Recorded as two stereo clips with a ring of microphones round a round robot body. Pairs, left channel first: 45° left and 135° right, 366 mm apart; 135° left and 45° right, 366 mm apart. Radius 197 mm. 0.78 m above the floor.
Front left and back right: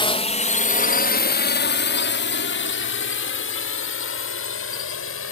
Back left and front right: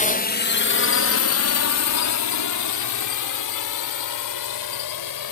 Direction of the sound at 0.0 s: 100° left.